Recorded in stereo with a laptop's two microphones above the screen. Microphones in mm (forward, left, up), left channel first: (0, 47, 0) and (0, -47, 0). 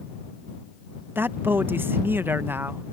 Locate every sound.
1.1 s a man speaking: 20° right (ahead or behind)